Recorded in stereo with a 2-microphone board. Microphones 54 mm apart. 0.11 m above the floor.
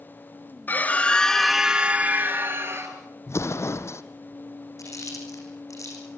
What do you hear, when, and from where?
0.7 s a scream: 35° left (ahead or behind), 1.6 m; by 3.0 s 55° right (ahead or behind), 2 m
3.3 s an explosion: 55° left (ahead or behind), 1.1 m
4.8 s chewing: 75° left (ahead or behind), 6.5 m